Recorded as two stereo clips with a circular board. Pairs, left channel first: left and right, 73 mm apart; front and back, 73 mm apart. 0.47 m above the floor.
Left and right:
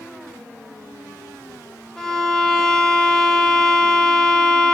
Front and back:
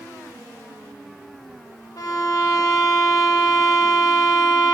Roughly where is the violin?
Ahead.